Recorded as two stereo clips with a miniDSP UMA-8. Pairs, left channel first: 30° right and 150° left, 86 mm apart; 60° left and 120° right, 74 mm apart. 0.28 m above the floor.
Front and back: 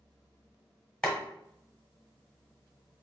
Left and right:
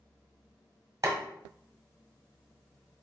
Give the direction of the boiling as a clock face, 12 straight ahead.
3 o'clock.